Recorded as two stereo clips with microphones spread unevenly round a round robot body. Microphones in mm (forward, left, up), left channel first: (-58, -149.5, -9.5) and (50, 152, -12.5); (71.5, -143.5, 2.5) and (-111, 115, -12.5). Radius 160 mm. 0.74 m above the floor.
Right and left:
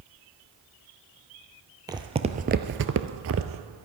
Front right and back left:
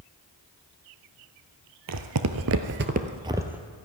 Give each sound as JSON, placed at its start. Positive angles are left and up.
{"t": 1.9, "sound": "footsteps", "azimuth_deg": 145, "distance_m": 1.1}